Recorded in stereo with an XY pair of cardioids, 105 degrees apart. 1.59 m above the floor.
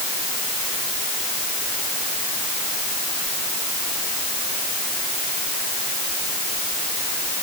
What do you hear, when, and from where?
Only background noise.